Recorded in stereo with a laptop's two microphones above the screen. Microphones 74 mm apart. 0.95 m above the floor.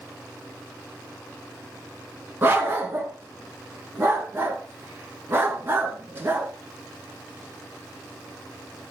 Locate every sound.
2.4 s a dog barking: 30° right (ahead or behind), 2.5 m